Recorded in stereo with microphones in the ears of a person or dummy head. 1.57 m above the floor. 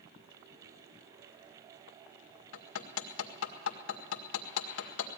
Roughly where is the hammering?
Left.